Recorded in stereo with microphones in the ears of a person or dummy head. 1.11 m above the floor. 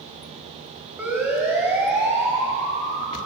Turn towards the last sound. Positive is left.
turn(degrees=-20)  # may be behind; listen again after turning